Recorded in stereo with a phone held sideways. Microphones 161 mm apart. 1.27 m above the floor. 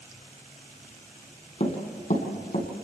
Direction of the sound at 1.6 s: 50° left (ahead or behind).